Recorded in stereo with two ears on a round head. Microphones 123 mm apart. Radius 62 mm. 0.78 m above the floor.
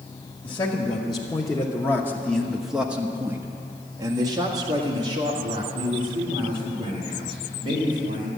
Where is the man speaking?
35° left (ahead or behind), 1.5 m; by 8.3 s 35° right (ahead or behind), 4 m.